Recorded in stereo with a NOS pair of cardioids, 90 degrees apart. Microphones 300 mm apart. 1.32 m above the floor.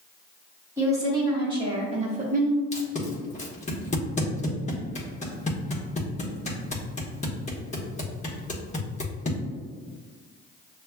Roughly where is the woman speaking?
Ahead.